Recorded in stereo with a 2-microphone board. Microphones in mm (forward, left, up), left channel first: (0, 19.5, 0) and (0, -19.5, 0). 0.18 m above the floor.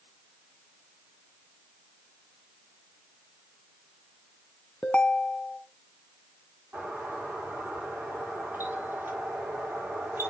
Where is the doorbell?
70° right (ahead or behind), 7.5 m.